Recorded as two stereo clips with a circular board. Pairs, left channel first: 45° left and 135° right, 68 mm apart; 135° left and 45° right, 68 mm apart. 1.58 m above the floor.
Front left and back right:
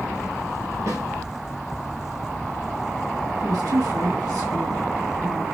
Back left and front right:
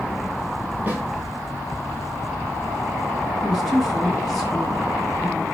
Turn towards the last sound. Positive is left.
turn(degrees=-140)